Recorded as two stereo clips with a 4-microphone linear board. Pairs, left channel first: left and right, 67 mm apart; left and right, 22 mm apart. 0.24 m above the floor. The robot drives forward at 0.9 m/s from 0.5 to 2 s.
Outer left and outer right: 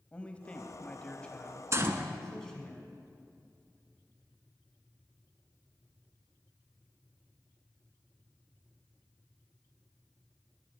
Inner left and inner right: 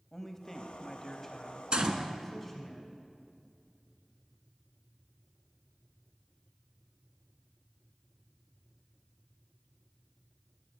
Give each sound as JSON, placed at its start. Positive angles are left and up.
{"t": 0.1, "sound": "a man speaking", "side_deg": 20, "distance_m": 0.9}
{"t": 1.7, "sound": "a gunshot", "side_deg": -45, "distance_m": 0.9}